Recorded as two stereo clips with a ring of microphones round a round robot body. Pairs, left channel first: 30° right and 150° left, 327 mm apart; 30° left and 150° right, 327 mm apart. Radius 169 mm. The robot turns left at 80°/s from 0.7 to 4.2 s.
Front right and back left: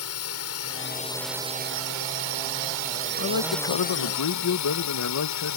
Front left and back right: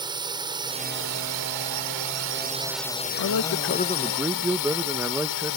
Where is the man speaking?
15° left; by 5.6 s 65° right.